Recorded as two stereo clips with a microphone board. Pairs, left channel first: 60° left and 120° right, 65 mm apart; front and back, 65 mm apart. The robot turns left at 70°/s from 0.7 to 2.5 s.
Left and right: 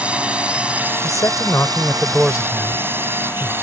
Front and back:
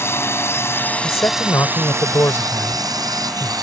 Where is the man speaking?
50° left; by 3.5 s 55° right.